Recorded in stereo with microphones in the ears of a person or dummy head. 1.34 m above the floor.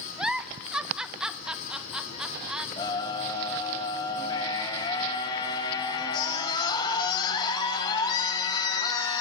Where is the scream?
20° left (ahead or behind), 8 m.